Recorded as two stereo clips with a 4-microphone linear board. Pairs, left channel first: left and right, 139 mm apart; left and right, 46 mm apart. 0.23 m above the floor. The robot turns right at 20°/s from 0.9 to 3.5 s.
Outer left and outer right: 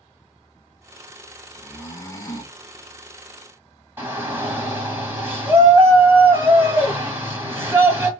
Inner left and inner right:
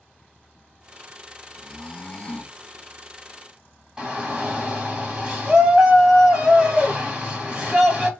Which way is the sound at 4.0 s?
15° right (ahead or behind).